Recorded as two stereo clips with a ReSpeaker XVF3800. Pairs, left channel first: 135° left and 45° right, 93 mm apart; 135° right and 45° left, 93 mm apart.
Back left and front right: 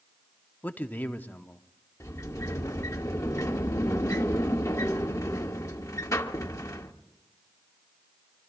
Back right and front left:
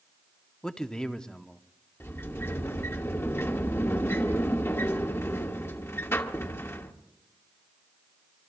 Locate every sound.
0.6 s a man speaking: 160° left, 0.7 m
2.0 s a sliding door: 175° left, 1.2 m